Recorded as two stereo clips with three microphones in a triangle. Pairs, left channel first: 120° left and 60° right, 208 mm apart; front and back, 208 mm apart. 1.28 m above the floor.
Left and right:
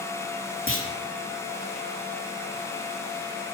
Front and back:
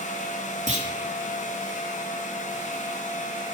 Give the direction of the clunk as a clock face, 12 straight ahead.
8 o'clock.